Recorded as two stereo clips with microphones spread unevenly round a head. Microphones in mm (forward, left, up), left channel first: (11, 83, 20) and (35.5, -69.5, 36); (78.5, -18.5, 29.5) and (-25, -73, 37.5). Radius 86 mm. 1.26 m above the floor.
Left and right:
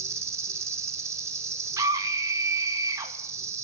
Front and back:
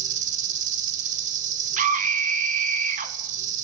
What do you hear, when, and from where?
0.0 s an insect: 150° right, 2 m
1.8 s a scream: 155° right, 2.5 m